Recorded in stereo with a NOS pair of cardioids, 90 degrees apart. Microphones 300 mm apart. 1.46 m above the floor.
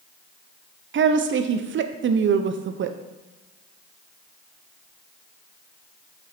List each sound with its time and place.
0.9 s a woman speaking: 40° right, 0.5 m